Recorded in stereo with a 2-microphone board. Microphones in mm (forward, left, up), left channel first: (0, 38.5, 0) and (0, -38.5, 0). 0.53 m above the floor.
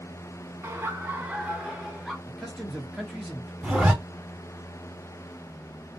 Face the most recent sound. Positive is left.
turn(degrees=-5)  # may be behind; listen again after turning